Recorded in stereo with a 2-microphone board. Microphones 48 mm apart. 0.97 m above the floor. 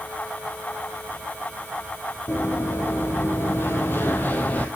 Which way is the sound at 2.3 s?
60° left (ahead or behind).